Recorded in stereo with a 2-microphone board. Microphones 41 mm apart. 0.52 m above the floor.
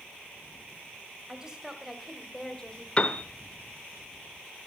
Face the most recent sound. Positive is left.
turn(degrees=25)  # may be behind; listen again after turning